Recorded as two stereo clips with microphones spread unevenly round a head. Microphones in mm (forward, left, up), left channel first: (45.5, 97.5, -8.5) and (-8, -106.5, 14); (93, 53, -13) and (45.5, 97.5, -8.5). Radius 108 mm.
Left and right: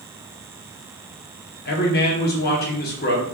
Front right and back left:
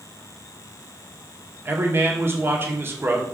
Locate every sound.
1.6 s a man speaking: 90° left, 0.8 m